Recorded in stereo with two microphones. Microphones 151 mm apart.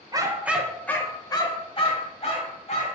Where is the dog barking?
25° right (ahead or behind), 0.6 m; by 3.0 s 50° left (ahead or behind), 1.5 m.